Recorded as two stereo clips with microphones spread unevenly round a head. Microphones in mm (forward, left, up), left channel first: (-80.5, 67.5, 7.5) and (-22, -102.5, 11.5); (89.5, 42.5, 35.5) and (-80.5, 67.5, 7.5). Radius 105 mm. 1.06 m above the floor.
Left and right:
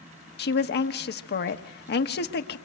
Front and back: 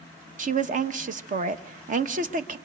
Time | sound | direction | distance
0.4 | a woman speaking | 135° left | 1.2 m